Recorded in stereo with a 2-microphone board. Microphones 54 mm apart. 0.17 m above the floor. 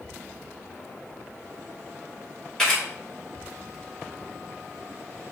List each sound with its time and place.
2.6 s a camera shutter: 10° left (ahead or behind), 1.9 m